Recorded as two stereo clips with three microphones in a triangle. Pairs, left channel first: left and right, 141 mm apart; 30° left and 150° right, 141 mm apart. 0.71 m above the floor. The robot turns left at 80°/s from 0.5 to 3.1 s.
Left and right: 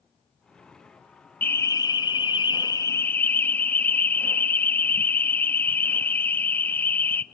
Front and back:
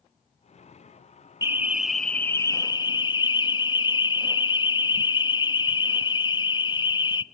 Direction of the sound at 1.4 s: 160° left.